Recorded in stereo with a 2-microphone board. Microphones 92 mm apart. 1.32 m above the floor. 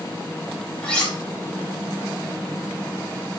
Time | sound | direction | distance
0.8 | cutlery clinking | 15° left (ahead or behind) | 4.5 m